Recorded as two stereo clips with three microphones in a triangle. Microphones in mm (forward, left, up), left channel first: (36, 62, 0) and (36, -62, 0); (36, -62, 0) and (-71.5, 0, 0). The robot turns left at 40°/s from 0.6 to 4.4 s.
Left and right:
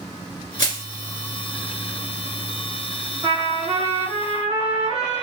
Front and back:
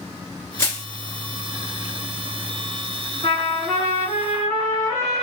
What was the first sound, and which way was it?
Crushing, 35° left.